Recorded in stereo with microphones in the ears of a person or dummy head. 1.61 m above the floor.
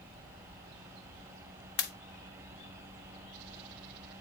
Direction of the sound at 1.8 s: 55° left (ahead or behind).